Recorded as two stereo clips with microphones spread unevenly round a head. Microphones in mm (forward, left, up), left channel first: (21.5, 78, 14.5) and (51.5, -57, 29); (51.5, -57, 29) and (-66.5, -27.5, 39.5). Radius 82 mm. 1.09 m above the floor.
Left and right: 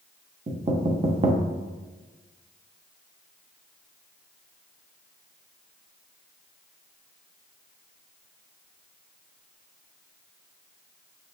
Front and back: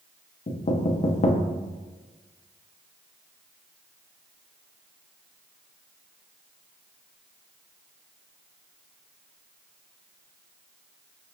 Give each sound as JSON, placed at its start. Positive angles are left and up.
{"t": 0.5, "sound": "knocking", "azimuth_deg": -30, "distance_m": 0.6}